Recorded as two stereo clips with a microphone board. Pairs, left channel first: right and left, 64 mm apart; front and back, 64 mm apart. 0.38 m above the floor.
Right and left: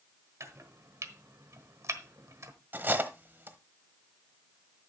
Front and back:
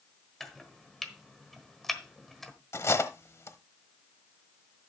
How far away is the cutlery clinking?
About 1.0 m.